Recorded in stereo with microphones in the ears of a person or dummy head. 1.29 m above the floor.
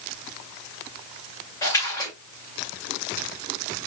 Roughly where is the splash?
Centre.